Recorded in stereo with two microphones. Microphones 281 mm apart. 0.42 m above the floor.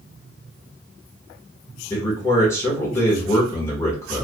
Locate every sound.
1.9 s a man speaking: 10° left (ahead or behind), 1.3 m